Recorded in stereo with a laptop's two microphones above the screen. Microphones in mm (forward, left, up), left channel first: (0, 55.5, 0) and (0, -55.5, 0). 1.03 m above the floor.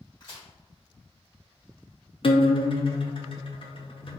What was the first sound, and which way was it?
A crack, 40° left (ahead or behind).